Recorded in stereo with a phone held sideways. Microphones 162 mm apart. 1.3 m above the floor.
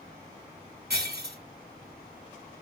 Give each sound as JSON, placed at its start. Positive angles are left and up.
{"t": 0.9, "sound": "breaking glass", "side_deg": -75, "distance_m": 2.5}